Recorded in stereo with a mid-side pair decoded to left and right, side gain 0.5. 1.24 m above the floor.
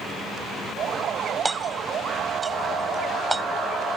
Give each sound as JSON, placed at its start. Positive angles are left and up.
{"t": 1.4, "sound": "hammering", "azimuth_deg": -20}